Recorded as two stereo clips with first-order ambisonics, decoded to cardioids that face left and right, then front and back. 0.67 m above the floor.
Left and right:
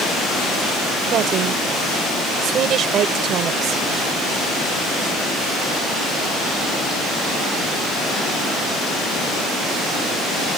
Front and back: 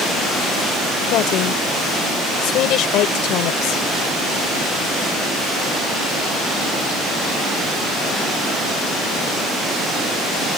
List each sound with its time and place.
1.1 s a woman speaking: 40° right